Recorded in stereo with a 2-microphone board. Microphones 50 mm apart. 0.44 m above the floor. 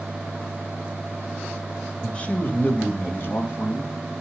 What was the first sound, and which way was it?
A man speaking, 20° left (ahead or behind).